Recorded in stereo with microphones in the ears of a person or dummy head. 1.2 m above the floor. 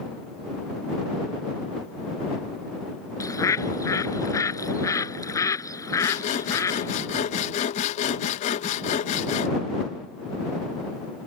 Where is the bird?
20° left (ahead or behind).